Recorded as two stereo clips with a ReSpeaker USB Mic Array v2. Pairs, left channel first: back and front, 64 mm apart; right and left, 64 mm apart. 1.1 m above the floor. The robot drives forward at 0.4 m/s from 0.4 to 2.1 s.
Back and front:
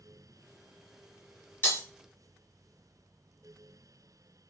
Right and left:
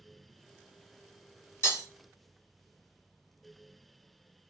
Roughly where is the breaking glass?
Behind right.